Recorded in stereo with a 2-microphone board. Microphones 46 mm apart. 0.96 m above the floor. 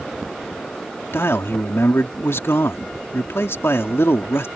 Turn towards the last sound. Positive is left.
turn(degrees=65)  # may be behind; listen again after turning